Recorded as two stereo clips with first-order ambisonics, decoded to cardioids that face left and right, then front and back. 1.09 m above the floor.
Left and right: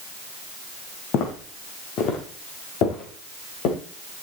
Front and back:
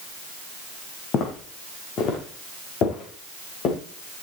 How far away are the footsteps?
About 3.5 m.